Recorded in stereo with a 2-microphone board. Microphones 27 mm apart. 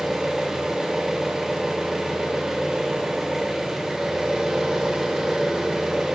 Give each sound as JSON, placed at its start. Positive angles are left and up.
{"t": 0.0, "sound": "an engine running", "side_deg": -25, "distance_m": 0.9}